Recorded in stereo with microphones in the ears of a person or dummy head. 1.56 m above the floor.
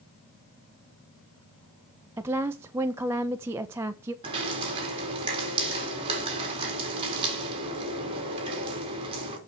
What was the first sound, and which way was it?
A woman speaking, 15° right (ahead or behind).